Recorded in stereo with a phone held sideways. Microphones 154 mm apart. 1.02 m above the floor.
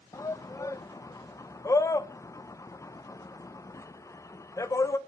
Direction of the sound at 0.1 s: 20° left (ahead or behind).